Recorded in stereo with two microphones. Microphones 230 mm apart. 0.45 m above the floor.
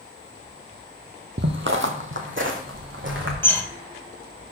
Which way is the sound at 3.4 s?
10° left (ahead or behind).